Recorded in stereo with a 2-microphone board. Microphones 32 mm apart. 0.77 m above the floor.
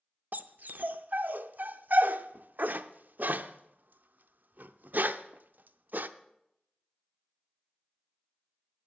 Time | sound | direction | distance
0.3 | a dog barking | 65° right (ahead or behind) | 0.5 m